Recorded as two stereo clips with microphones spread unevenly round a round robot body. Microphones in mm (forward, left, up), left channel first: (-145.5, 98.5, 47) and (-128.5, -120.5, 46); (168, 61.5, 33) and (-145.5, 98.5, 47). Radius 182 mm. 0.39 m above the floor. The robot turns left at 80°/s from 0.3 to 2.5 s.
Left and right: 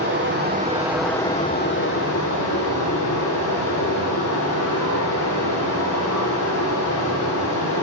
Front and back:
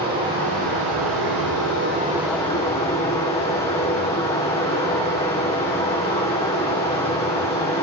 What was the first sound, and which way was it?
Running water, 120° right.